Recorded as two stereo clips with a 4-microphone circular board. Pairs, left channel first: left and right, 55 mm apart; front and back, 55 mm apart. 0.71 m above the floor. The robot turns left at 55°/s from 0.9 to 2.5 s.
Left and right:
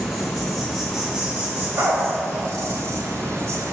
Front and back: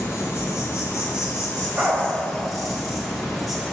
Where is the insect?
5° right, 1.5 m; by 3.8 s 95° right, 1.5 m.